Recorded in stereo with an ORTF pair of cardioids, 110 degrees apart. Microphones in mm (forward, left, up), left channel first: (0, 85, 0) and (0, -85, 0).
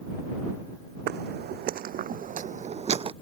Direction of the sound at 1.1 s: 70° right.